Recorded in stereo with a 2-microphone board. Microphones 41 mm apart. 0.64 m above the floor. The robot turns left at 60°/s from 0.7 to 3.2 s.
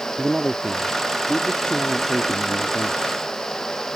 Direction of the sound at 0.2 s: 155° right.